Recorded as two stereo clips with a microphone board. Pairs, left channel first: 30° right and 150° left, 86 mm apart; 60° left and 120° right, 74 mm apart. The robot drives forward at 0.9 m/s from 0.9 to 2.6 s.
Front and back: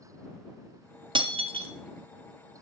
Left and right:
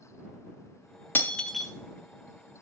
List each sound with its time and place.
1.1 s breaking glass: 125° left, 0.6 m; by 1.7 s 150° left, 1.0 m